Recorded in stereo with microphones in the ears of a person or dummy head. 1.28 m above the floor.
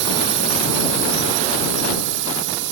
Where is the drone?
65° right (ahead or behind); by 2.7 s 70° right (ahead or behind).